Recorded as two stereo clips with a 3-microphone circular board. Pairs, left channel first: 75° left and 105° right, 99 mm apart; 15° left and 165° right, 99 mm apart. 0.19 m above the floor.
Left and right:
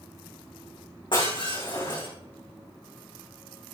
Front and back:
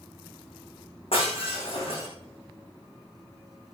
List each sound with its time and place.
1.1 s breaking glass: 35° left, 7 m